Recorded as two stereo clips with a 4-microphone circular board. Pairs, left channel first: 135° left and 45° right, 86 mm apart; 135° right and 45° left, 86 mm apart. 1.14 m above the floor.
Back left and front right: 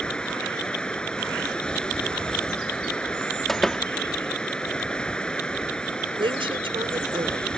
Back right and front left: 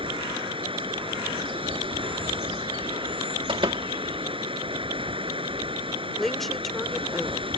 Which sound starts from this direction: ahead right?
A woman speaking, at 6.2 s.